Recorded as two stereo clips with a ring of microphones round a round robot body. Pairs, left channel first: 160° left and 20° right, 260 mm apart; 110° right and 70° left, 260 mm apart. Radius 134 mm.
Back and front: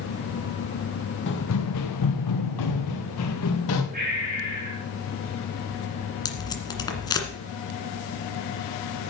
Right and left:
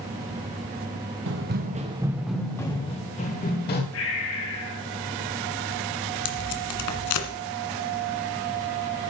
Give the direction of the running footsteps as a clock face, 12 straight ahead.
8 o'clock.